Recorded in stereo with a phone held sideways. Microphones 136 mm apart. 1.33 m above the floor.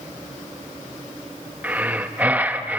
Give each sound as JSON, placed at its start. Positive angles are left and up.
{"t": 1.6, "sound": "breathing", "side_deg": -10, "distance_m": 0.7}